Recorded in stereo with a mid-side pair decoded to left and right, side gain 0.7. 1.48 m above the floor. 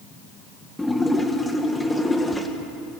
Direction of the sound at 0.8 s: 10° left.